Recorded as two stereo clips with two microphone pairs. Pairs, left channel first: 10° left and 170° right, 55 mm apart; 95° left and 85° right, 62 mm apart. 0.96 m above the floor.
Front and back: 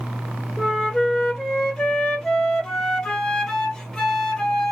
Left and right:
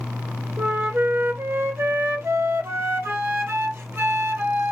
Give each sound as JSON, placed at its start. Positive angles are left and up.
{"t": 0.6, "sound": "a flute", "azimuth_deg": -70, "distance_m": 0.7}